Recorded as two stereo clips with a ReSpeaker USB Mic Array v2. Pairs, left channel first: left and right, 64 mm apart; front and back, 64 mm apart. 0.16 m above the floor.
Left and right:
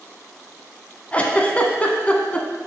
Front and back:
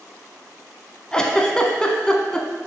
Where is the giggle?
60° left, 0.7 m.